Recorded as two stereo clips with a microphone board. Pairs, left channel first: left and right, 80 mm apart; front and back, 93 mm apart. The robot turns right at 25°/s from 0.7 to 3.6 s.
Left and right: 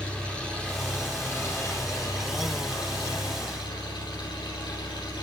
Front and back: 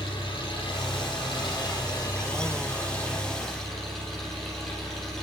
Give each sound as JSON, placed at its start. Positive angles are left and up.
{"t": 0.0, "sound": "an engine running", "azimuth_deg": 15, "distance_m": 8.0}